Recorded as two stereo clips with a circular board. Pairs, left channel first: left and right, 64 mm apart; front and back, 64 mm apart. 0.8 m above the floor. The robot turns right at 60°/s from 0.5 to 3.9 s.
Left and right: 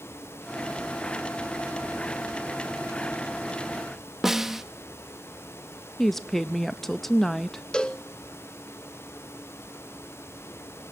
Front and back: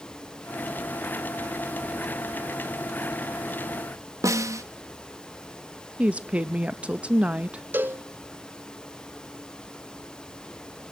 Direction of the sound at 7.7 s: 155° left.